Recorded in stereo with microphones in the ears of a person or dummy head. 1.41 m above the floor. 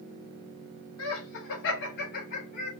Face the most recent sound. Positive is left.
turn(degrees=40)  # may be behind; listen again after turning